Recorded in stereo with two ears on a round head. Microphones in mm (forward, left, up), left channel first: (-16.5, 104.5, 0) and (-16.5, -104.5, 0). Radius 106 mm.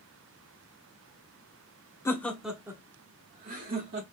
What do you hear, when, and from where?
2.0 s laughter: 15° left (ahead or behind), 0.9 m; by 4.0 s 45° right (ahead or behind), 1.3 m